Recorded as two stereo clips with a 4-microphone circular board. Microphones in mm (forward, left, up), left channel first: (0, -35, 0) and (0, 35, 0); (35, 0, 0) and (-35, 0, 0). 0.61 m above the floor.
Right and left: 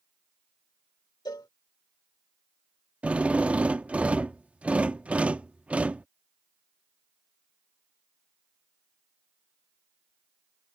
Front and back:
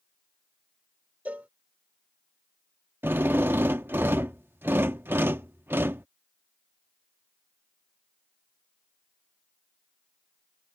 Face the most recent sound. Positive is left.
turn(degrees=145)